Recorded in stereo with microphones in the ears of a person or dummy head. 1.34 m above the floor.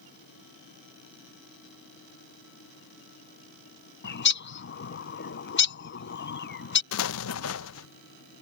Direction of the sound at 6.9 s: 70° left (ahead or behind).